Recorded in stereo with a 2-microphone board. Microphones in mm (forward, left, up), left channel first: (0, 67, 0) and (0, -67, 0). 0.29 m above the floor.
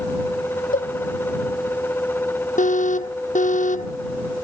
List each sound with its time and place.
0.7 s a cowbell: 80° left
2.6 s an alarm: 65° left (ahead or behind)